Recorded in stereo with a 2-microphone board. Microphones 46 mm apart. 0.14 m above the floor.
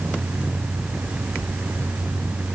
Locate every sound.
Only background noise.